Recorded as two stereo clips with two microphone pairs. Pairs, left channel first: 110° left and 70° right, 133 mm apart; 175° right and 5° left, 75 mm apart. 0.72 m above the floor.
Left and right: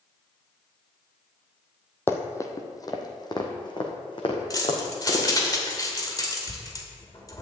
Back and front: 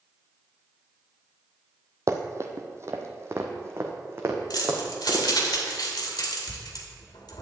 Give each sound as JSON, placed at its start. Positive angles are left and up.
{"t": 2.1, "sound": "running footsteps", "azimuth_deg": 45, "distance_m": 1.1}
{"t": 4.5, "sound": "keys jangling", "azimuth_deg": 170, "distance_m": 2.0}